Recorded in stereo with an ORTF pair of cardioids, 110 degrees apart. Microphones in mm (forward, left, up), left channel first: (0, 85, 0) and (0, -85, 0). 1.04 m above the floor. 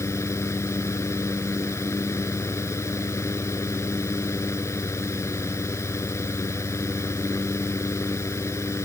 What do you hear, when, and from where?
0.0 s a fan: 15° left